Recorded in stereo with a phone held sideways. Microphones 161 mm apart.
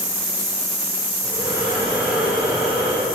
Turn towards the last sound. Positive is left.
turn(degrees=-10)  # may be behind; listen again after turning